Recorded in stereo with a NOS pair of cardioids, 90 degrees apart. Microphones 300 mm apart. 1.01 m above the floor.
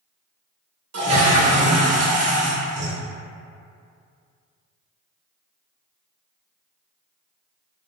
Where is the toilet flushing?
50° right, 1.0 m.